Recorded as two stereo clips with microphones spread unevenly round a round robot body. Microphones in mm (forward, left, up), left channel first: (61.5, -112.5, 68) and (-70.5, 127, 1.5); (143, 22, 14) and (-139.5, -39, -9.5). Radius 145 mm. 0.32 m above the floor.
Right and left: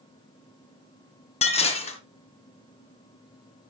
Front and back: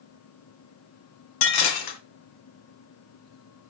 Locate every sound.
1.4 s dishes clattering: 10° left, 2.0 m